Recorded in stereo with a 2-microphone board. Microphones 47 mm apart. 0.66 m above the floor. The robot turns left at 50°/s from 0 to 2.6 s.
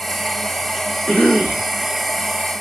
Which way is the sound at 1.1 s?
135° left.